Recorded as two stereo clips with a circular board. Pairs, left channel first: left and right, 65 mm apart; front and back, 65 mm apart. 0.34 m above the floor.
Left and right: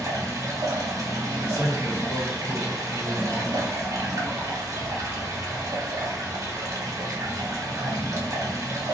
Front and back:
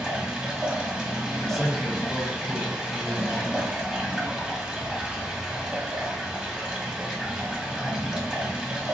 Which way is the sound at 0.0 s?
105° right.